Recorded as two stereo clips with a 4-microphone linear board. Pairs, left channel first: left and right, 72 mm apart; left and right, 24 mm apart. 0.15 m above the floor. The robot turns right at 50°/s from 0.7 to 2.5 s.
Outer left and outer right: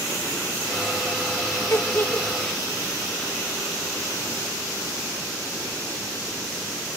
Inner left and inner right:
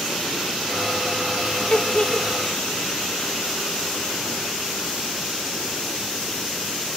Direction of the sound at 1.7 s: 50° left (ahead or behind).